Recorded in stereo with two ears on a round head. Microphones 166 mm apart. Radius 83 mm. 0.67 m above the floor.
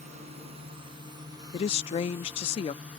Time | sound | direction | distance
0.0 | a drone | 40° right (ahead or behind) | ?
1.5 | a woman speaking | 30° left (ahead or behind) | ?